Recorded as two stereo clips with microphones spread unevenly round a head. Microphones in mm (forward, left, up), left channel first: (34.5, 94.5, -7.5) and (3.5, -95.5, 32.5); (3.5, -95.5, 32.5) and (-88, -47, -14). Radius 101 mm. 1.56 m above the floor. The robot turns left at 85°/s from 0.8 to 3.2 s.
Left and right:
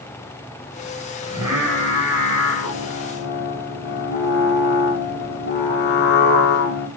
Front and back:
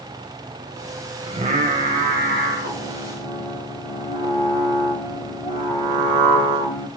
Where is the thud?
No thud in this recording.